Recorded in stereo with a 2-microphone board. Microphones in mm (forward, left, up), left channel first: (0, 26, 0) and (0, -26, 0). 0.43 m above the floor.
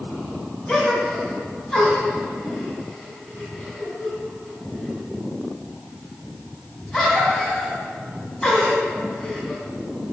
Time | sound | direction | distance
0.7 | a gasp | 20° left (ahead or behind) | 2 m